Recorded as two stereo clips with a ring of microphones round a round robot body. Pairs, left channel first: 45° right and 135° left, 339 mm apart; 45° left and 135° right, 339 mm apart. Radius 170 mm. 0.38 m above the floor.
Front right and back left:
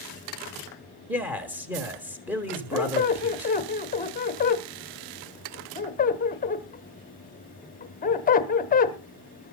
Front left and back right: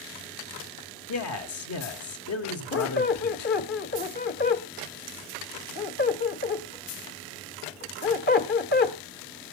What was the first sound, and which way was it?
A man speaking, 50° left.